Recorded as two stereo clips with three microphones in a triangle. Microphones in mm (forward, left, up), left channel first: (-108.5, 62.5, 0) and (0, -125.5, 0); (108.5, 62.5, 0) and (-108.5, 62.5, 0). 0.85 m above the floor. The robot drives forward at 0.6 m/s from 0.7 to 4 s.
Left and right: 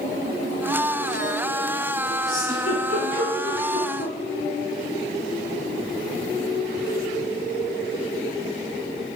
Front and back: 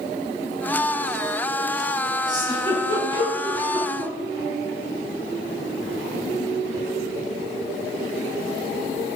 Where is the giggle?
110° left, 7.5 m; by 4.1 s 120° left, 8 m.